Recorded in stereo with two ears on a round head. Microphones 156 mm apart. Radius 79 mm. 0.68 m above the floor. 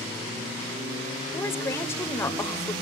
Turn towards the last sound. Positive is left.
turn(degrees=15)  # may be behind; listen again after turning